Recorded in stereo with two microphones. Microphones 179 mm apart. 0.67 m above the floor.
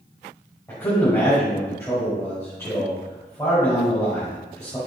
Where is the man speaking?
15° left (ahead or behind), 3.5 m.